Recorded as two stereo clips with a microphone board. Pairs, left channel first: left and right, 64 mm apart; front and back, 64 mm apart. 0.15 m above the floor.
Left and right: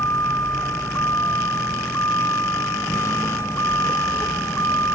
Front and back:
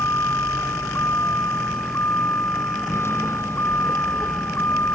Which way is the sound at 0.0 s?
45° left.